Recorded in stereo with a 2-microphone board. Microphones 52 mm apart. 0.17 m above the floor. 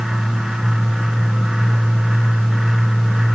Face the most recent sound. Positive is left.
No sound to turn to.